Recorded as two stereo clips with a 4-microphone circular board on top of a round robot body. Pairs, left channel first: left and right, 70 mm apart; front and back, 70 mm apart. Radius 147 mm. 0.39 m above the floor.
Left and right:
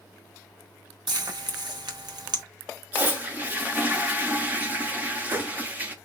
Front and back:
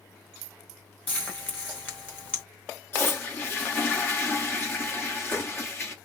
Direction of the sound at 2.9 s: 35° right.